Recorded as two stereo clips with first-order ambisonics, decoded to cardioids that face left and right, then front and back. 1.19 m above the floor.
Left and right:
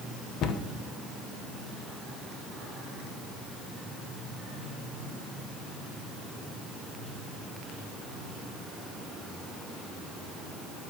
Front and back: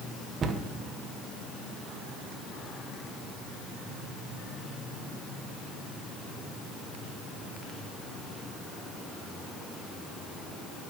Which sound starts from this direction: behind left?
A cupboard door, at 0.4 s.